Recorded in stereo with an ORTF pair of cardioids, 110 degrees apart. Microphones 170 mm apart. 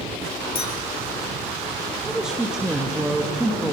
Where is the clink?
35° left, 5.5 m.